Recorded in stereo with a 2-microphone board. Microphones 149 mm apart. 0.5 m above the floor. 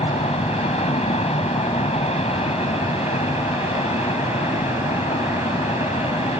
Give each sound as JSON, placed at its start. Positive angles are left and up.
{"t": 0.0, "sound": "an aircraft", "side_deg": 45}